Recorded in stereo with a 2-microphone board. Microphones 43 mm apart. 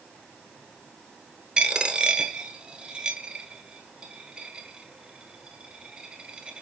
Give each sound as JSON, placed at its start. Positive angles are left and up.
{"t": 1.6, "sound": "a dropped coin", "side_deg": -25, "distance_m": 0.8}